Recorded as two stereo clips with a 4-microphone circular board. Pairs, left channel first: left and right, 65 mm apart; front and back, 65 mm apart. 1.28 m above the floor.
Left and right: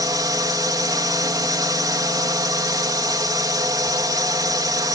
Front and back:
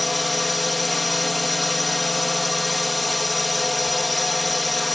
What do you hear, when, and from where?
0.0 s a drone: 90° right